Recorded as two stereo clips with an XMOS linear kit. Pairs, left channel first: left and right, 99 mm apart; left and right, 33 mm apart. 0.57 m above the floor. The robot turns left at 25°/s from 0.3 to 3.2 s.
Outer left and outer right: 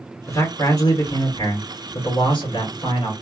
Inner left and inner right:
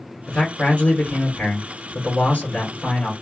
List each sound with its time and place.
0.3 s a man speaking: 135° left, 1.6 m; by 3.1 s 65° left, 1.6 m